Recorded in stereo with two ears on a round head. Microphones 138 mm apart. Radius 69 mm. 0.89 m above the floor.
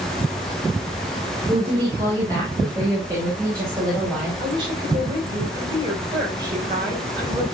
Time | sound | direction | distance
1.5 | a woman speaking | 30° right (ahead or behind) | 3.5 m
4.4 | a woman speaking | 30° right (ahead or behind) | 4.5 m